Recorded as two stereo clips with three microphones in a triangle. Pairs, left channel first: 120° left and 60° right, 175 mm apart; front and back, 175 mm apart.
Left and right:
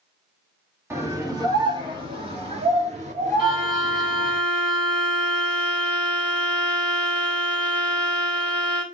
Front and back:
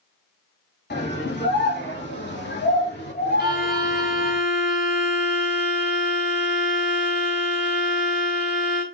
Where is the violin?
5° left, 5 m.